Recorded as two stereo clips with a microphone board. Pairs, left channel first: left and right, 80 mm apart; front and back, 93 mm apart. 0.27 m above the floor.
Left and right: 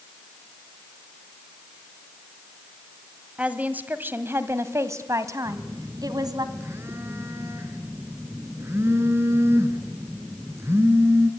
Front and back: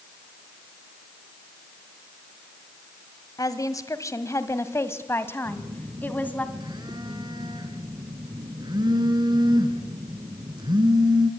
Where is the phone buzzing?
150° right, 2.5 m.